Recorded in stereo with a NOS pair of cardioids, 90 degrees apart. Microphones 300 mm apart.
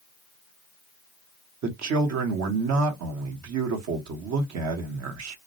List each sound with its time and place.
1.6 s a man speaking: 65° right, 0.9 m